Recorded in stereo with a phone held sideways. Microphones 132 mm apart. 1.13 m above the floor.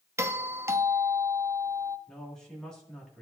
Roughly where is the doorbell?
Right.